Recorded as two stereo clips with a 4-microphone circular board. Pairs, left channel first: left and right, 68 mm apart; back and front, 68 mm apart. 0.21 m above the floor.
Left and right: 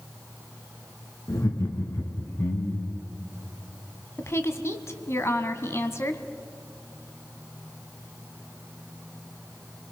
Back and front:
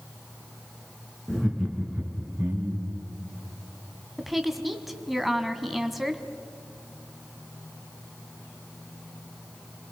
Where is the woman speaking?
85° left, 1.4 m.